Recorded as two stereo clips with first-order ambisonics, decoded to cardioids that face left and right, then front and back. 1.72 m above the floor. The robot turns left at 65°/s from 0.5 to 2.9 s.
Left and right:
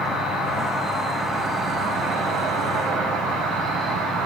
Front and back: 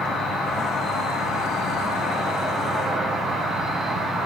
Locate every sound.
0.0 s an insect: 60° left, 2 m; by 4.3 s 95° right, 2 m